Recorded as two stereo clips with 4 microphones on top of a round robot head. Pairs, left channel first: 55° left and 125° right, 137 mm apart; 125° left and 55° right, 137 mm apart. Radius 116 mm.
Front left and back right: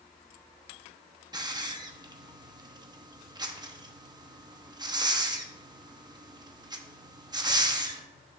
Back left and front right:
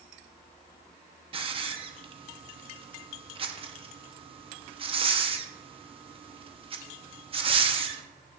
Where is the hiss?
80° right, 0.9 m.